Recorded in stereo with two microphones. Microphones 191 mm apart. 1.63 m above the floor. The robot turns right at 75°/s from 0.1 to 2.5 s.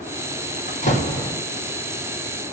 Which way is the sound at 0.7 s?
125° left.